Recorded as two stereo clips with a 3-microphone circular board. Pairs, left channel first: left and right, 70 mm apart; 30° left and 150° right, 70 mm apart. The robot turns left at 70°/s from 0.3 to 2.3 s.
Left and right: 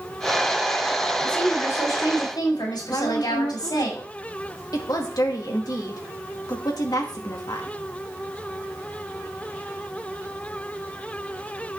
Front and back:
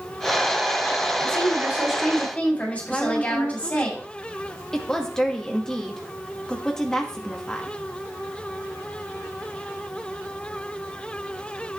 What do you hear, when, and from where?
1.2 s a woman speaking: 175° left, 7.5 m; by 3.9 s 100° left, 7.5 m
2.9 s a woman speaking: 110° left, 2.5 m